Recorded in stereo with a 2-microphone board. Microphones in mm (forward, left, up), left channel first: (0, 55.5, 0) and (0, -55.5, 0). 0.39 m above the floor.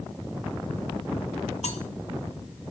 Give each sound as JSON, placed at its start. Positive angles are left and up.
{"t": 1.6, "sound": "cutlery clinking", "side_deg": 75, "distance_m": 1.9}